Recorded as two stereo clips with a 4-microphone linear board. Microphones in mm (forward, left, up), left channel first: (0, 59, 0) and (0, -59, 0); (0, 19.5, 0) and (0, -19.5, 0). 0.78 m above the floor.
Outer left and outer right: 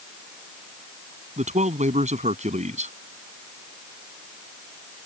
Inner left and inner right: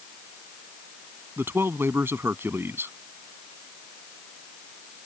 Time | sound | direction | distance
1.4 | a man speaking | 80° right | ?